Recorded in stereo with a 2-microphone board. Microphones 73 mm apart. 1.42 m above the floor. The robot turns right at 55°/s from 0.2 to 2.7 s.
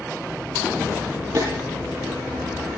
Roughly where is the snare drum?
Right.